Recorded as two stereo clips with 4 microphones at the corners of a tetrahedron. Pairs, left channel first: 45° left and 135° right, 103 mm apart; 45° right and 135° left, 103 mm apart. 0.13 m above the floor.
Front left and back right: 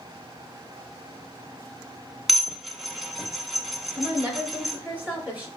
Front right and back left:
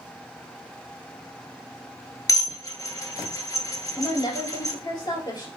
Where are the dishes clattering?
45° right, 0.9 m.